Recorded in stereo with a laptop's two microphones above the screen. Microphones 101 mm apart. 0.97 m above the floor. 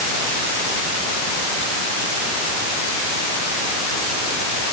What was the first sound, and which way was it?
Only background noise.